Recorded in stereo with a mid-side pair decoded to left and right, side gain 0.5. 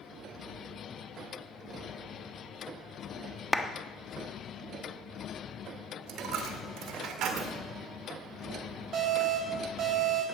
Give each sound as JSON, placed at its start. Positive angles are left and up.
{"t": 3.5, "sound": "a clap", "azimuth_deg": 5, "distance_m": 1.2}
{"t": 6.1, "sound": "a dropped coin", "azimuth_deg": -65, "distance_m": 1.8}
{"t": 8.9, "sound": "an alarm", "azimuth_deg": -50, "distance_m": 6.0}